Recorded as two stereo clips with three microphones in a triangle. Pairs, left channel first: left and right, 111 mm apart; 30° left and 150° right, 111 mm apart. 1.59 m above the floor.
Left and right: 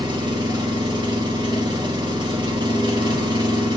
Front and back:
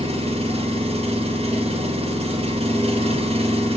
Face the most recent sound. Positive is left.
turn(degrees=-135)